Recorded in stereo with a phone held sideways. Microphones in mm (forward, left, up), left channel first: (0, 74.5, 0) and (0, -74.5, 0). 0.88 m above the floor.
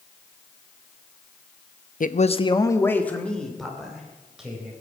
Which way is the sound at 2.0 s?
65° left (ahead or behind).